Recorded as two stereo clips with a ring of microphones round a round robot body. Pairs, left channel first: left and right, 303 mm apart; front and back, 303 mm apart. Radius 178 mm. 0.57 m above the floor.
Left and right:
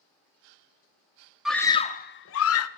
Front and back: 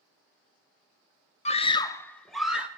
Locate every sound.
1.4 s a scream: 5° right, 0.6 m; by 2.7 s 95° left, 0.8 m